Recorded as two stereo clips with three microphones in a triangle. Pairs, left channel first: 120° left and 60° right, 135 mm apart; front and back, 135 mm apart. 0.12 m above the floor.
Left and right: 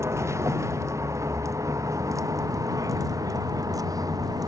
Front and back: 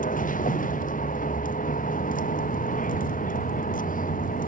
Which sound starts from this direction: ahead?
A vehicle, at 0.0 s.